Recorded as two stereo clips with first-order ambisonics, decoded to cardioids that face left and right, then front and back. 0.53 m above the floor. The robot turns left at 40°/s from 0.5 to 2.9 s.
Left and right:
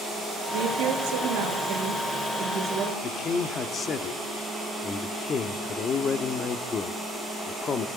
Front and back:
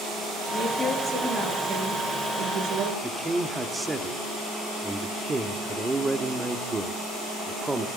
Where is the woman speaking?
80° right, 8 m; by 2.9 s 175° right, 8 m.